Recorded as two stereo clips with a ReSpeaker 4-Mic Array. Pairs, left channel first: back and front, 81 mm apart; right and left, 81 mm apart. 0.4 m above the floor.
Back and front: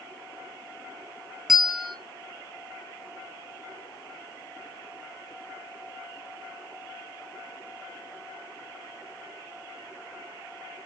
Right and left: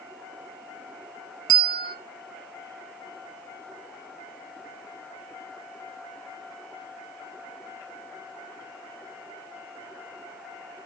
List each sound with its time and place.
1.5 s a bell: 85° right, 0.7 m